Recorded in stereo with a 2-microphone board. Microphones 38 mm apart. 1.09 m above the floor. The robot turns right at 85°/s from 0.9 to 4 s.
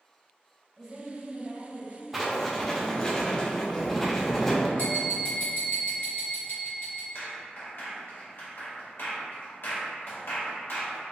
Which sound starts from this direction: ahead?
A woman speaking, at 0.8 s.